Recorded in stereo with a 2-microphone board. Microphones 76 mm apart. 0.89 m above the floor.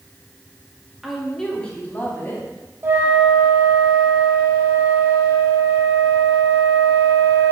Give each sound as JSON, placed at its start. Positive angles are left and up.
{"t": 1.0, "sound": "a woman speaking", "side_deg": -5, "distance_m": 1.7}
{"t": 2.8, "sound": "a flute", "side_deg": -30, "distance_m": 1.1}